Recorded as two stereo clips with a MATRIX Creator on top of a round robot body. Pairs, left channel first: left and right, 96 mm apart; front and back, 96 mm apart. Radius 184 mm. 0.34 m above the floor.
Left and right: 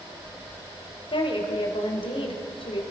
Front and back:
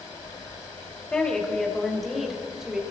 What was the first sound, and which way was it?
A woman speaking, 80° left.